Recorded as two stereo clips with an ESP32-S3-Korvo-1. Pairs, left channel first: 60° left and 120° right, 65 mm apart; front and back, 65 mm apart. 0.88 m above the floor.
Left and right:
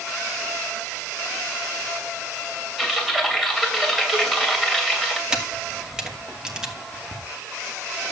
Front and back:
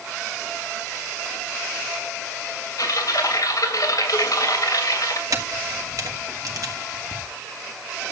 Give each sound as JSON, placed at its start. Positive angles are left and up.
{"t": 2.8, "sound": "typing on a keyboard", "azimuth_deg": -30, "distance_m": 2.5}
{"t": 5.3, "sound": "a camera shutter", "azimuth_deg": 160, "distance_m": 2.5}